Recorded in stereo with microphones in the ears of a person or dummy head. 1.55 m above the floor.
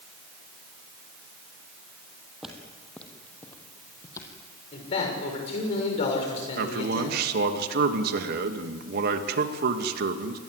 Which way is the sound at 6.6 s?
60° right (ahead or behind).